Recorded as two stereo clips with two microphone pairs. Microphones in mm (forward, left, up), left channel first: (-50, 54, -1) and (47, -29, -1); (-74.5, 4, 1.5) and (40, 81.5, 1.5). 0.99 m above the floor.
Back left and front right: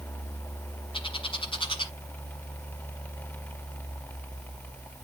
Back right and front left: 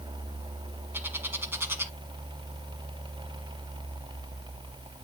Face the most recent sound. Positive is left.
turn(degrees=105)